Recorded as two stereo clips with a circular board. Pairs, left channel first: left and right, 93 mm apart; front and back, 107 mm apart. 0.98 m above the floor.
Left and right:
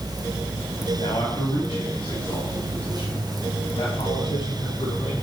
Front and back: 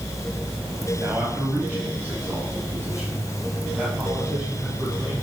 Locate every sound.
1.0 s a man speaking: 110° left, 5 m; by 5.1 s 95° left, 7 m